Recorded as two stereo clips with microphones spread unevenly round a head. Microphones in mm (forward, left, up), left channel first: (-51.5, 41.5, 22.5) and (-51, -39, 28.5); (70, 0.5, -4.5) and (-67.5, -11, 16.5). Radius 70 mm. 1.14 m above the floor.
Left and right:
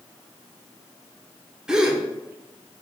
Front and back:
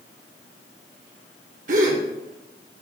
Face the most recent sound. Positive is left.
turn(degrees=-170)